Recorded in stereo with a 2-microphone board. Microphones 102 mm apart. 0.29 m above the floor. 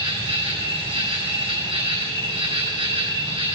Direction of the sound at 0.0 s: 60° right (ahead or behind).